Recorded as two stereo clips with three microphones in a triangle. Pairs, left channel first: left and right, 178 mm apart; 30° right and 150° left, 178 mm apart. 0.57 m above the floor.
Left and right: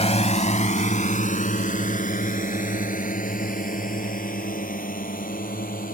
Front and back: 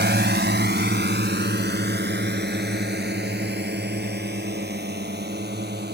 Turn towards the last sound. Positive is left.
turn(degrees=125)